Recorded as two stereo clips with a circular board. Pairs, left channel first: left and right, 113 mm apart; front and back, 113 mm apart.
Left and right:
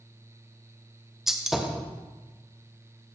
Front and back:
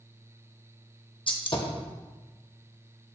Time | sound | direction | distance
1.3 | a gunshot | 5° right | 1.0 m